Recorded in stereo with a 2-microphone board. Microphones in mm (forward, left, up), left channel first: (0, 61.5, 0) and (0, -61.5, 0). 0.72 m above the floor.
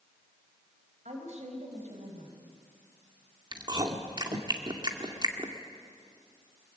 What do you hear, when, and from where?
1.1 s a woman speaking: 70° right (ahead or behind), 4.5 m
3.5 s chewing: 35° right (ahead or behind), 2 m